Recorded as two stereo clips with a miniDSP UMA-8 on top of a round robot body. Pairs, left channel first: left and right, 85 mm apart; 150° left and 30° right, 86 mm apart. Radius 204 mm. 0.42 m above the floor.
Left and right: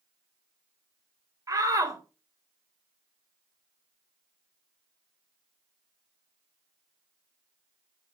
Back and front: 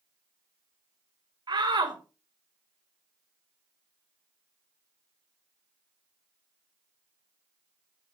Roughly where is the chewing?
No chewing in this recording.